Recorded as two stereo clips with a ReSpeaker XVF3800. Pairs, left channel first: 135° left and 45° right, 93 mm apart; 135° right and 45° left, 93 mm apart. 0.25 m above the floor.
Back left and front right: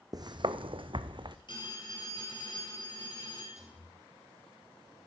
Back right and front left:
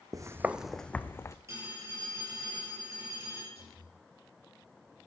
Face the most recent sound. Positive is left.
turn(degrees=-120)